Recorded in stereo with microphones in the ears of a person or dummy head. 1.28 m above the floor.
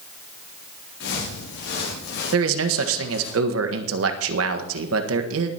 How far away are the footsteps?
About 8 m.